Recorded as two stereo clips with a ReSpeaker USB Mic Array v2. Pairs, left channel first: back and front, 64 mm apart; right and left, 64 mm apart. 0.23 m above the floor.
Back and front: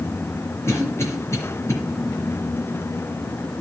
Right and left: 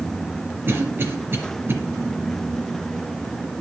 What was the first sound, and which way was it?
A cough, 140° left.